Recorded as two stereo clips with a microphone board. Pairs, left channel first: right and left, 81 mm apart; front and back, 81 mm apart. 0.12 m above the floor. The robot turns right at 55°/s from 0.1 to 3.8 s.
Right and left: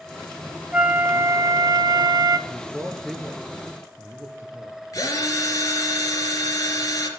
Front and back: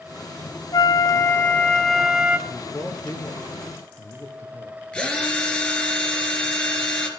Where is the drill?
75° right, 2.5 m.